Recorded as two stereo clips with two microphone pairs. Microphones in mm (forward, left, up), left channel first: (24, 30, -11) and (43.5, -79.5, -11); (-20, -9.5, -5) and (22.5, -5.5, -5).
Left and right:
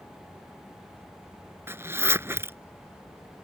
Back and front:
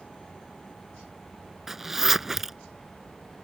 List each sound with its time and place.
1.7 s a zipper: 65° right